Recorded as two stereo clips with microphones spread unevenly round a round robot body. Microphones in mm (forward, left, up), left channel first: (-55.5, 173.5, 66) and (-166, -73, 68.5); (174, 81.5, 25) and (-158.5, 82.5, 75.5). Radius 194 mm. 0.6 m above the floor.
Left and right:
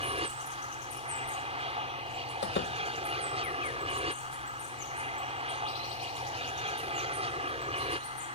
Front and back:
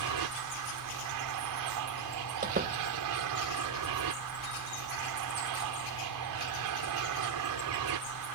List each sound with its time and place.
0.0 s an aircraft: 175° right
2.4 s a door slam: 115° left